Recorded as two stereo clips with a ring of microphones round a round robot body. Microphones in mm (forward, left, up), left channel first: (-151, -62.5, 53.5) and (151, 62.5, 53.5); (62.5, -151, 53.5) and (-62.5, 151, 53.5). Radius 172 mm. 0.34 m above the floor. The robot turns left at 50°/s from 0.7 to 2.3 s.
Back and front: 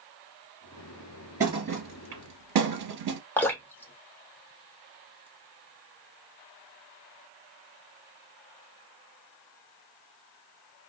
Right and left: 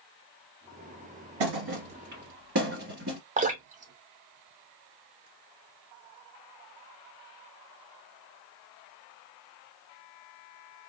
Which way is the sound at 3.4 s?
130° left.